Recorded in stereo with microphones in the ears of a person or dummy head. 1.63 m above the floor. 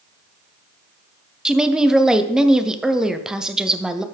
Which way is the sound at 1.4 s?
5° right (ahead or behind).